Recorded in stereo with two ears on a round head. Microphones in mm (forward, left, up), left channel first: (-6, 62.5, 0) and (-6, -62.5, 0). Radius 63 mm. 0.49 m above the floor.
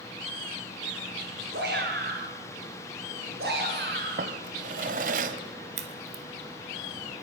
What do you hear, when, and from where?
1.5 s a shout: 80° right, 9 m; by 4.3 s 85° right, 10 m
4.2 s a drawer: 65° right (ahead or behind), 1.8 m
5.8 s a crack: 50° right (ahead or behind), 2 m